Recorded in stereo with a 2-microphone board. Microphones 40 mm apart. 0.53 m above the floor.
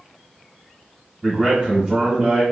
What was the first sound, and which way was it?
A man speaking, 15° right (ahead or behind).